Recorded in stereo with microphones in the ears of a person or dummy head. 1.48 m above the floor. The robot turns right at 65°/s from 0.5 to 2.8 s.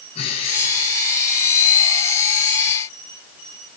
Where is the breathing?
35° left, 9.5 m; by 1.0 s 70° left, 9.5 m.